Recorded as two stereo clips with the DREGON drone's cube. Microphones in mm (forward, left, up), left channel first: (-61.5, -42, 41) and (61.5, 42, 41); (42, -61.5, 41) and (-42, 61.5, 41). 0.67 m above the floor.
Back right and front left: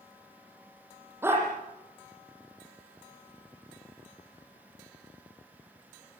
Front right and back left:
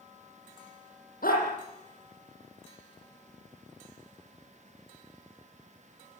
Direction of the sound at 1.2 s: 40° right.